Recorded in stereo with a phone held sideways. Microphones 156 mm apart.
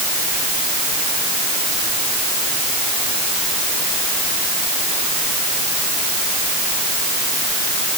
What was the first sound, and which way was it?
Only background noise.